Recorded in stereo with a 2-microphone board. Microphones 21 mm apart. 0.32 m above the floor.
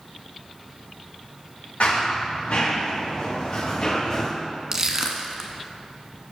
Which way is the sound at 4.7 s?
30° right (ahead or behind).